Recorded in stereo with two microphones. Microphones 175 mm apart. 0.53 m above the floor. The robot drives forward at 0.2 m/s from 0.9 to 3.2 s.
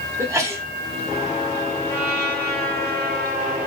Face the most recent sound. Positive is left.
turn(degrees=-60)  # may be behind; listen again after turning